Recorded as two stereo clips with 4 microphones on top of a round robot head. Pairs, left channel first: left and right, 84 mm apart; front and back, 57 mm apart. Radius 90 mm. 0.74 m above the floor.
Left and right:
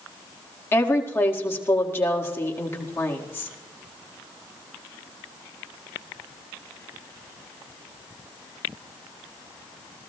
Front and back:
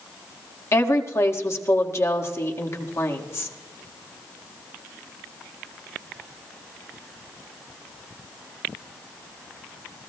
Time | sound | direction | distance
0.7 | a woman speaking | 30° left | 1.7 m